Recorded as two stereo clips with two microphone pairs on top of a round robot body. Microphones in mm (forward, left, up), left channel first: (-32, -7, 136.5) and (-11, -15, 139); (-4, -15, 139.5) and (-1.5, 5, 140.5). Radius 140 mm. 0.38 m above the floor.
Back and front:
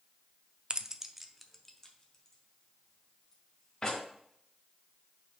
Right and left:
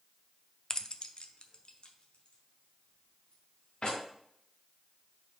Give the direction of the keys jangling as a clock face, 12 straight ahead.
2 o'clock.